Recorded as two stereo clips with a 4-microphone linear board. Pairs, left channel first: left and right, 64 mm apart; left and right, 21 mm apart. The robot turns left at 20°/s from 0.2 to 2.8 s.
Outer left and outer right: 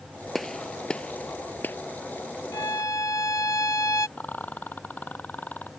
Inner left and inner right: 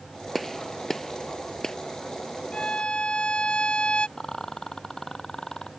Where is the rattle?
25° left (ahead or behind).